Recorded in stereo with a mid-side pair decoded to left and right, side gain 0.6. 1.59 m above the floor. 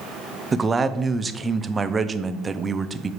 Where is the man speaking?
25° right, 0.6 m.